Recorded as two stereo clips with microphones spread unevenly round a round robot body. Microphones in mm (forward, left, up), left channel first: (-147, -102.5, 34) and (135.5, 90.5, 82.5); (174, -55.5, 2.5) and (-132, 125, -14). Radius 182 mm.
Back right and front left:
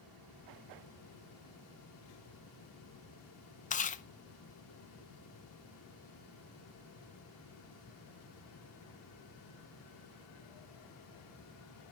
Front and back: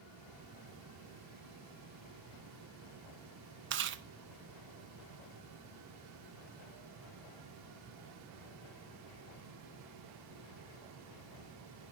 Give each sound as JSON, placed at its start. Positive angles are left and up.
{"t": 3.7, "sound": "chewing", "azimuth_deg": 175, "distance_m": 0.7}